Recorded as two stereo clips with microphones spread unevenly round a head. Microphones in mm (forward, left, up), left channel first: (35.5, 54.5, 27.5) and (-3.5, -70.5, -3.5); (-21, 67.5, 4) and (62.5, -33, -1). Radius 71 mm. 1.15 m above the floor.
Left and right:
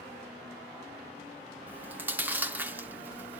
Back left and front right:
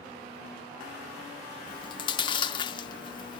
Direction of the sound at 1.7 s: 165° left.